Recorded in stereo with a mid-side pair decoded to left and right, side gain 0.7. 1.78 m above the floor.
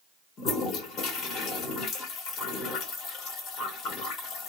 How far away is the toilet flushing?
About 1.5 m.